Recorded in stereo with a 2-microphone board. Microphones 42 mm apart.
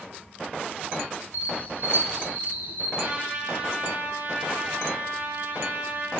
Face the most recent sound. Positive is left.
turn(degrees=-45)  # may be behind; listen again after turning